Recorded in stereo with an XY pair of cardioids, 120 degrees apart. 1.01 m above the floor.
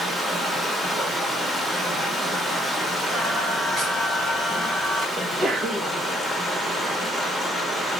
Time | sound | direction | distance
0.0 | running water | 5° right | 2.0 m
3.1 | singing | 30° right | 3 m
5.2 | a sneeze | 25° right | 1.2 m